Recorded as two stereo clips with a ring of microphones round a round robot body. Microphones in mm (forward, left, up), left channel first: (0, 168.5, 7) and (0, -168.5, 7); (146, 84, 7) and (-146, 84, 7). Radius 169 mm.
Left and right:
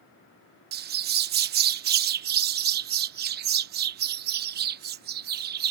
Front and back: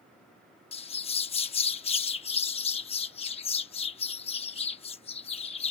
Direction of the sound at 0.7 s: 55° right.